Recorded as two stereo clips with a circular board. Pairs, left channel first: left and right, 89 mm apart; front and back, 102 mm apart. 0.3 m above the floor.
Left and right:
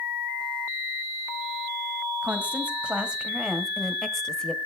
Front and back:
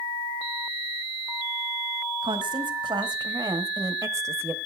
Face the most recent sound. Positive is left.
turn(degrees=155)